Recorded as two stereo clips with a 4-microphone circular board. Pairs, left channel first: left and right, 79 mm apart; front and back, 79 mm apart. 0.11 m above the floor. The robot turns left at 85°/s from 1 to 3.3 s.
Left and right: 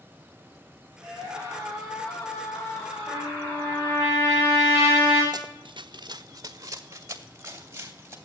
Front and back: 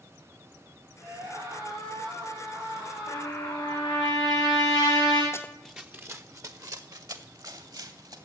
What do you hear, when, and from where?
1.0 s a scream: 105° right, 8.5 m; by 4.1 s 65° left, 8.5 m
3.1 s a trumpet: 55° left, 8 m; by 5.2 s 35° left, 8 m
5.3 s running footsteps: 55° right, 0.6 m; by 8.2 s 150° right, 3 m